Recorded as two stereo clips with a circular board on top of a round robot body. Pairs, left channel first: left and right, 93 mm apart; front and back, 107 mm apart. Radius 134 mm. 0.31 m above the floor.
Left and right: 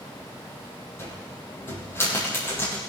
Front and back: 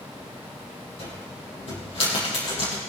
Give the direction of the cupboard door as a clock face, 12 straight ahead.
11 o'clock.